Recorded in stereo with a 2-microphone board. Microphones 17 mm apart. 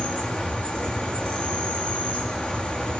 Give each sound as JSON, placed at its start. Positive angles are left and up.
{"t": 0.0, "sound": "an insect", "side_deg": 90, "distance_m": 7.5}